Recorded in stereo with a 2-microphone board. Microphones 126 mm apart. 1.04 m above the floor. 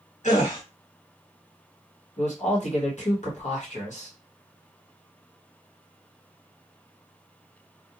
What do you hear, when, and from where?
0.2 s a gasp: 80° left, 1.7 m
2.2 s a man speaking: 70° left (ahead or behind), 1.1 m